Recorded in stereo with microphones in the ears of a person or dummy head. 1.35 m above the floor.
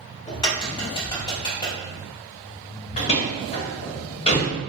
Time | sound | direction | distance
0.3 | a crack | 20° left (ahead or behind) | 1.1 m
3.0 | a door slam | 30° left (ahead or behind) | 1.0 m